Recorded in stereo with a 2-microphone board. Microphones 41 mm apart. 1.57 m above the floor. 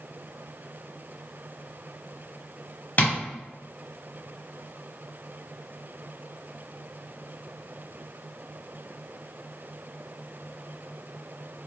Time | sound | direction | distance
3.0 | tapping | 35° left (ahead or behind) | 0.9 m